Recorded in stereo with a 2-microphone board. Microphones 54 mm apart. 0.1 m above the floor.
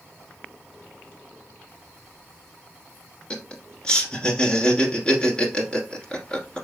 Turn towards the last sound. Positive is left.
turn(degrees=20)  # may be behind; listen again after turning